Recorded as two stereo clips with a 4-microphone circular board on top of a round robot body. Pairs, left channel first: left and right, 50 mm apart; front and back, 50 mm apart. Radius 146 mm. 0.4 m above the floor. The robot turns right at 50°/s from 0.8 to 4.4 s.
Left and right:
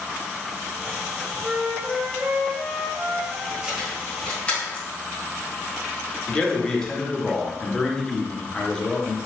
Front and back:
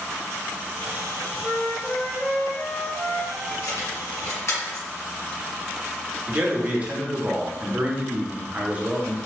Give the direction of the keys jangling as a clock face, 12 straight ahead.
12 o'clock.